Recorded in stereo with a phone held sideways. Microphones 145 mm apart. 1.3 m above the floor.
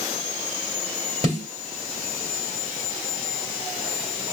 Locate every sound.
1.2 s a snare drum: 45° right (ahead or behind), 2 m